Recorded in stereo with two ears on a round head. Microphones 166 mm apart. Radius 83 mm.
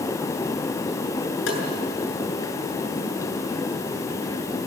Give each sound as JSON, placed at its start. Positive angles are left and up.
{"t": 1.5, "sound": "tapping", "side_deg": 75, "distance_m": 7.5}